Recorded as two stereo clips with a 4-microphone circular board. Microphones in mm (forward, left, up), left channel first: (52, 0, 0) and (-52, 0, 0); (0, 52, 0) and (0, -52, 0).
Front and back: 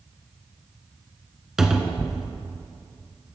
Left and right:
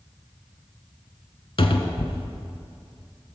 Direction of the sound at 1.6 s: 95° left.